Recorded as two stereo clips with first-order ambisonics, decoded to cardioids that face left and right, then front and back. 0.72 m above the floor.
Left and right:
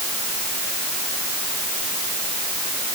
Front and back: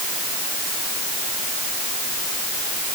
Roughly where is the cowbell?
I don't hear a cowbell.